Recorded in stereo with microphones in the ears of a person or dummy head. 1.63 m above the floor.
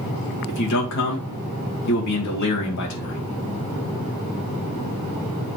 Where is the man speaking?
60° left (ahead or behind), 2 m.